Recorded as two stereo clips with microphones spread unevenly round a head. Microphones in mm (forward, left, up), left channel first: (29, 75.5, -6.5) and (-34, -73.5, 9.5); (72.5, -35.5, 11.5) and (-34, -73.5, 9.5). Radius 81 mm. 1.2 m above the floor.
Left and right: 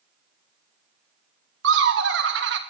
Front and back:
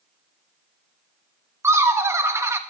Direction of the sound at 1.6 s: 90° right.